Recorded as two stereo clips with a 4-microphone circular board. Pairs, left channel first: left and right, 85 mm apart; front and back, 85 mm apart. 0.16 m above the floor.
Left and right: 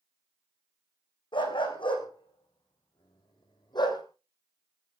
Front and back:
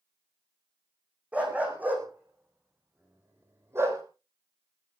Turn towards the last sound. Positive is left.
turn(degrees=125)